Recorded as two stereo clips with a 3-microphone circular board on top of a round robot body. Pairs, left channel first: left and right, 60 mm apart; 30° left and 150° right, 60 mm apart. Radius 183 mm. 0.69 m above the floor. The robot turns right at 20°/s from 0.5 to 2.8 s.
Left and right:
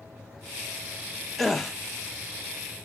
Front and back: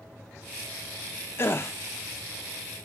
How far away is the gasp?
About 0.9 m.